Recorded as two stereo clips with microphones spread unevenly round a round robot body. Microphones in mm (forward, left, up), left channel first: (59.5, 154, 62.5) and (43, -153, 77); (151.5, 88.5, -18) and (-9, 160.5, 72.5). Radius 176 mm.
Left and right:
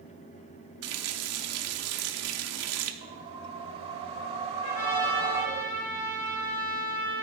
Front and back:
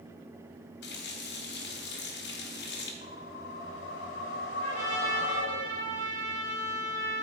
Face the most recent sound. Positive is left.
turn(degrees=50)